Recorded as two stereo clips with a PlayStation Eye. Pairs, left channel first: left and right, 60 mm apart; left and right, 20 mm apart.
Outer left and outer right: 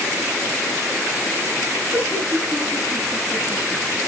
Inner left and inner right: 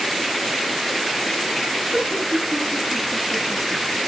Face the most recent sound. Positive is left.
turn(degrees=-10)  # may be behind; listen again after turning